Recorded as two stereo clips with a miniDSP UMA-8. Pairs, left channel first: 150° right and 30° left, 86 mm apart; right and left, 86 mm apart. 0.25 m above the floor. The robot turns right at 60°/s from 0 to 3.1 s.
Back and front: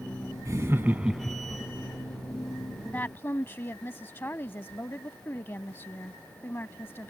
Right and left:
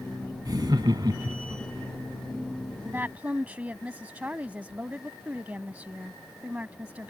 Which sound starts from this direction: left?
Laughter, at 0.5 s.